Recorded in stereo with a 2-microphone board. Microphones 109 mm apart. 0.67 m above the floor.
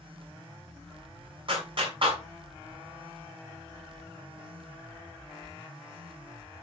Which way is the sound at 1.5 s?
55° right (ahead or behind).